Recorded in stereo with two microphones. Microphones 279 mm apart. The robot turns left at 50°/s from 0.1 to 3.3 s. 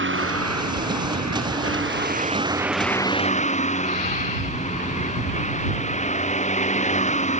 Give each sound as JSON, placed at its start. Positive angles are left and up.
{"t": 0.0, "sound": "a vehicle", "azimuth_deg": -45}